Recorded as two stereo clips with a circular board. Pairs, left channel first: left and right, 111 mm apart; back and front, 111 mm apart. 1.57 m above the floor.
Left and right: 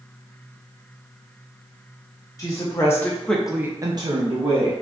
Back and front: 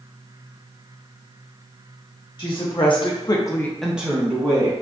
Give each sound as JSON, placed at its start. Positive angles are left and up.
{"t": 2.4, "sound": "a woman speaking", "azimuth_deg": 145, "distance_m": 1.2}